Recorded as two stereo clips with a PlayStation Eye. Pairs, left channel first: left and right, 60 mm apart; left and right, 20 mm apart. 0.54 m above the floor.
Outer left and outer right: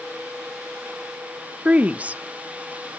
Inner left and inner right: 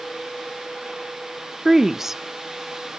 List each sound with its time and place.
1.6 s a woman speaking: 25° right (ahead or behind), 0.7 m